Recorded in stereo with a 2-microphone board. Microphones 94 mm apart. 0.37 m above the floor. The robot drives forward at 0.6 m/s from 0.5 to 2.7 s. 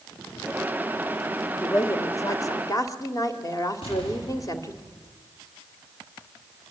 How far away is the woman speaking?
About 1.8 m.